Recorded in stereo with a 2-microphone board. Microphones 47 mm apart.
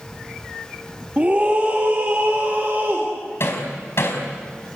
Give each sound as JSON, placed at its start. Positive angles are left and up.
{"t": 1.2, "sound": "a scream", "side_deg": -30, "distance_m": 2.5}
{"t": 3.4, "sound": "hammering", "side_deg": 60, "distance_m": 4.5}